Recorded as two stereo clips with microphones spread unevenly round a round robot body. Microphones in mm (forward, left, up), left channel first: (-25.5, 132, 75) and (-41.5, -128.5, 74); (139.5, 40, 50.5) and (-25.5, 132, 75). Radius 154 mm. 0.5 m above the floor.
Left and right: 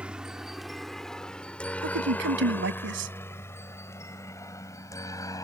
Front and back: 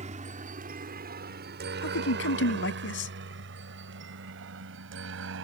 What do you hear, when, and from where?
0.0 s a helicopter: 175° right; by 5.5 s 165° left
1.8 s a man speaking: 45° right